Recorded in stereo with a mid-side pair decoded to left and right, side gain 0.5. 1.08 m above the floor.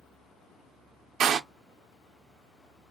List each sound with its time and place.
1.2 s a door slam: 55° right, 0.5 m